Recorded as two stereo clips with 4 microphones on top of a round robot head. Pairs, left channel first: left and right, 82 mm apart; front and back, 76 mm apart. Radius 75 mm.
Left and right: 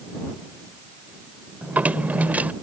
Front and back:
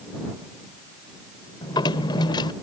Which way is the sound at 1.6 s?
20° right.